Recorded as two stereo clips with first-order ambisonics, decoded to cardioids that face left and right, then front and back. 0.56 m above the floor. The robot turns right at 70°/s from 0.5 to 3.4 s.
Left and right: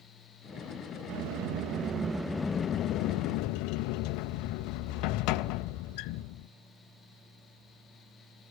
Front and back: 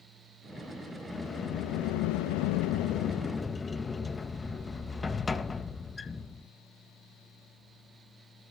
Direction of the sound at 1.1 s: 85° right.